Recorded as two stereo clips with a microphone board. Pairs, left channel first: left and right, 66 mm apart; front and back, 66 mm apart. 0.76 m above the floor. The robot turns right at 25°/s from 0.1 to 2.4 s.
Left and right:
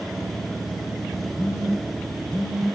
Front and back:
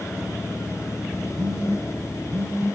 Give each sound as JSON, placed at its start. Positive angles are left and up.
{"t": 1.4, "sound": "a phone buzzing", "azimuth_deg": -170, "distance_m": 4.5}